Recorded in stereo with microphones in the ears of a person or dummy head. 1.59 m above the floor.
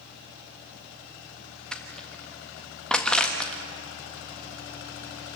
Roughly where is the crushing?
Centre.